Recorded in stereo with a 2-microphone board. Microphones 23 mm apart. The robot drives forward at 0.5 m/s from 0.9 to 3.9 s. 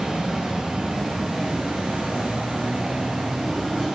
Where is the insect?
50° right (ahead or behind), 1.1 m; by 4.0 s 45° right (ahead or behind), 1.2 m.